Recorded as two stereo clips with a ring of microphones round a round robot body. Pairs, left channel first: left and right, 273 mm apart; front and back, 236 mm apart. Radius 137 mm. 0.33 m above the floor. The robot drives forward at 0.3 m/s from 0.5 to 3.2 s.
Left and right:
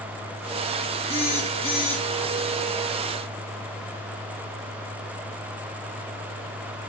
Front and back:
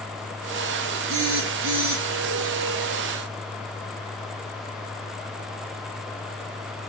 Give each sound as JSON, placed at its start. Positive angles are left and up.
{"t": 1.1, "sound": "a phone buzzing", "azimuth_deg": 160, "distance_m": 3.0}